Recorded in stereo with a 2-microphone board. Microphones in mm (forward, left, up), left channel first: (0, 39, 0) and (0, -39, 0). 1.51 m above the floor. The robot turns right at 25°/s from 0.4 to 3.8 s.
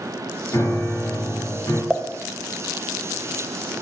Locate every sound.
0.5 s a piano: 45° left, 1.8 m; by 1.8 s 80° left, 1.8 m
1.9 s a pop: centre (ahead or behind), 0.5 m; by 2.1 s 5° right (ahead or behind), 0.5 m